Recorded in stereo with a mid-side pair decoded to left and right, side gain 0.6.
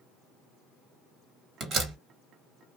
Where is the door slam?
55° right, 1.6 m.